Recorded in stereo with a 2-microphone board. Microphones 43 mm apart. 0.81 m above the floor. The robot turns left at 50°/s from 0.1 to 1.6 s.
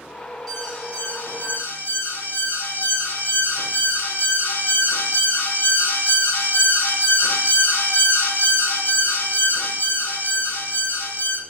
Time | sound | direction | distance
0.5 | an alarm | straight behind | 3 m